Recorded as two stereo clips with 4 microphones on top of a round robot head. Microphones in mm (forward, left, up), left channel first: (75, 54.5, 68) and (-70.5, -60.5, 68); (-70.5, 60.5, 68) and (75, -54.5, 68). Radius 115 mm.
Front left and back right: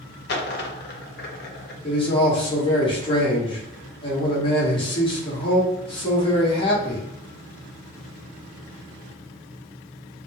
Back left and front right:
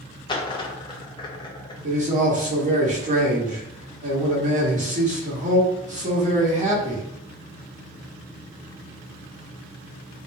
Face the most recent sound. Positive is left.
turn(degrees=-15)